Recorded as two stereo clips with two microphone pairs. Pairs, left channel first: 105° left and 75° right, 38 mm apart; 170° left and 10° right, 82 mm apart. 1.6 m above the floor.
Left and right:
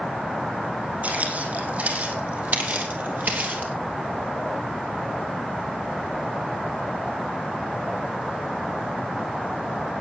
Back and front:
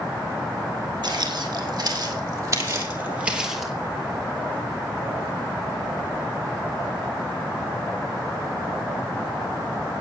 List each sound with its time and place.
1.0 s footsteps: 40° right, 4.5 m; by 3.7 s 105° right, 2.5 m